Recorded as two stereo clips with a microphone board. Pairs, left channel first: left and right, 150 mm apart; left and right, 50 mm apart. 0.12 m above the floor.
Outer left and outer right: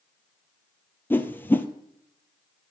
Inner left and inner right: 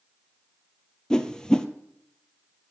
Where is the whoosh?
15° left (ahead or behind), 0.8 m.